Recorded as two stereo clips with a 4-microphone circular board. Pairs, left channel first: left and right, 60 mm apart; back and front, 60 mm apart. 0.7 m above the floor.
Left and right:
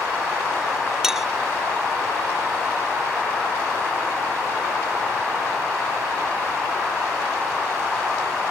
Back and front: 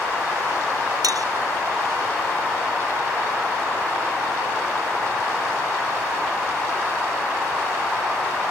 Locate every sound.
1.0 s a clink: 5° right